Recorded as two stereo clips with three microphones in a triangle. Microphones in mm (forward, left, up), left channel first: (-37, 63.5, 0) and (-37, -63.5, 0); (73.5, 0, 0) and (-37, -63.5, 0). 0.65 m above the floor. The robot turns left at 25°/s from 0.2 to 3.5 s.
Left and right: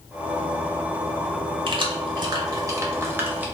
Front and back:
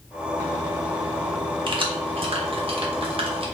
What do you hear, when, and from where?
1.7 s keys jangling: 120° right, 0.5 m; by 3.5 s 165° right, 0.5 m